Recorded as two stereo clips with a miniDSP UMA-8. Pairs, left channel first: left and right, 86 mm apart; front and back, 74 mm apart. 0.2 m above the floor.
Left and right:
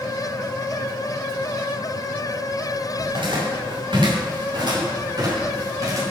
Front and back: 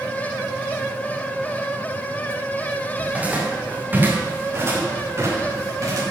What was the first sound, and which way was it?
Footsteps, 105° right.